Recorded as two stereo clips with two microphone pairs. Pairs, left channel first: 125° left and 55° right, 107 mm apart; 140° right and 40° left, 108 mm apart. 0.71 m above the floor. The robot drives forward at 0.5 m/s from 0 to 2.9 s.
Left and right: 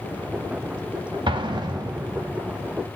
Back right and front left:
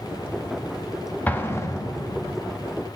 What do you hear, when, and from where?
1.3 s an explosion: 75° right, 0.8 m; by 2.4 s 125° right, 0.9 m